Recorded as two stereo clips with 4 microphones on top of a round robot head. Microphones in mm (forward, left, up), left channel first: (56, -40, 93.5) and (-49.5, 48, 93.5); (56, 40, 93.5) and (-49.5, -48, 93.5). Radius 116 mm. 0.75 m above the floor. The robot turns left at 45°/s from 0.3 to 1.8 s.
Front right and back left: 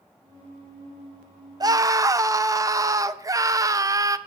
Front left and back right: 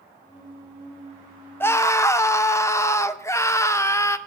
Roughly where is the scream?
Left.